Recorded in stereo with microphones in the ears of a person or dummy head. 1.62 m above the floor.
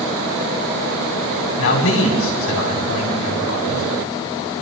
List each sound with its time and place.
1.6 s a man speaking: 70° left (ahead or behind), 5 m